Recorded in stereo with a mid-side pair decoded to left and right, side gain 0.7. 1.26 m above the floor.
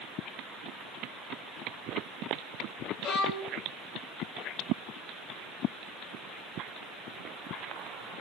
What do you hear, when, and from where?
3.0 s a violin: 60° left, 1.6 m